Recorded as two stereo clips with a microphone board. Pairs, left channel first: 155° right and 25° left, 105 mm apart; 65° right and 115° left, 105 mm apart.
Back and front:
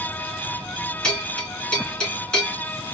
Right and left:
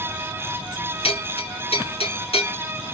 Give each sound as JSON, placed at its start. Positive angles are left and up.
{"t": 1.0, "sound": "a bell", "azimuth_deg": -75, "distance_m": 2.0}